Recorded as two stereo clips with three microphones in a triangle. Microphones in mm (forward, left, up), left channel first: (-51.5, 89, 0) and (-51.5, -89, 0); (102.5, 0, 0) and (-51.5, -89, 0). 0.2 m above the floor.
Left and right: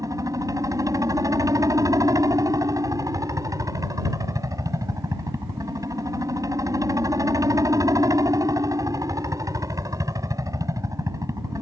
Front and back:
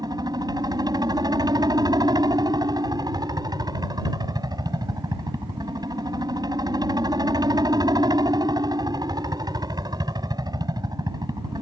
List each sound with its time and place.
0.0 s a helicopter: 130° right